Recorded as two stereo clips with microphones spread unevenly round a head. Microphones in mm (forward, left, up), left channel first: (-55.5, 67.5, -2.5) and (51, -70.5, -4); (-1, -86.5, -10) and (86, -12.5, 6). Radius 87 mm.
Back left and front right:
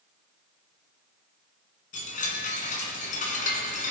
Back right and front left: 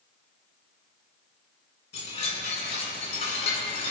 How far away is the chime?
About 2.5 m.